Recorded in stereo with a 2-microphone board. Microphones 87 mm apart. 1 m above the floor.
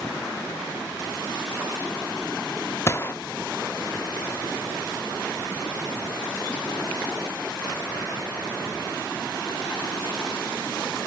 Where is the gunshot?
30° left (ahead or behind), 0.7 m.